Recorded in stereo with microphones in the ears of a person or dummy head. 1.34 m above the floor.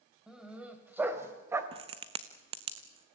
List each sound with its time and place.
0.3 s a dog barking: 5° right (ahead or behind), 2.5 m; by 1.6 s 15° right (ahead or behind), 2.0 m
1.7 s a crack: 35° right (ahead or behind), 1.1 m